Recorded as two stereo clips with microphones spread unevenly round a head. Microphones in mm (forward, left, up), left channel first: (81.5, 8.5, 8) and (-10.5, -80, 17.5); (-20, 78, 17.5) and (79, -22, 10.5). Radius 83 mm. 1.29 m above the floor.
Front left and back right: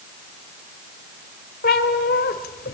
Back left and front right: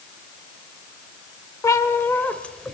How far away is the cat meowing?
About 1.9 m.